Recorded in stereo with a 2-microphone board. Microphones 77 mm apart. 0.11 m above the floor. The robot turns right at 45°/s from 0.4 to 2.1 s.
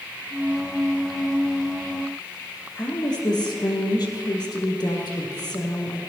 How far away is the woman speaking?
About 3 m.